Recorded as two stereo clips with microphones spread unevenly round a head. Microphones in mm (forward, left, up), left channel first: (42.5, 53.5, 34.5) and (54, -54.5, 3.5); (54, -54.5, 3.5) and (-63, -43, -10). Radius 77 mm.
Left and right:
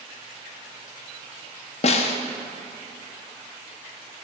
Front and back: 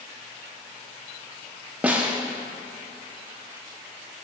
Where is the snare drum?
90° left, 0.6 m.